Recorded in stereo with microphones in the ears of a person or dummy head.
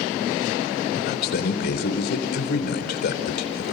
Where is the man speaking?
60° left (ahead or behind), 4.5 m.